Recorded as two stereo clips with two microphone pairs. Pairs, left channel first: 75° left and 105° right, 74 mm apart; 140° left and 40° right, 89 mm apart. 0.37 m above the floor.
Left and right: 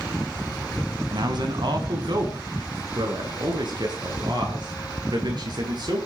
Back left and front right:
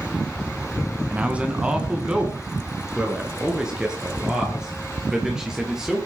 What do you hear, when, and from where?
1.1 s a man speaking: 120° right, 3 m; by 6.1 s 125° right, 7.5 m